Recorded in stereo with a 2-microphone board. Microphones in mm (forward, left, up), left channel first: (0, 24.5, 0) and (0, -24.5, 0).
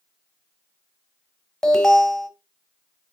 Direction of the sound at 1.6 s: 15° left (ahead or behind).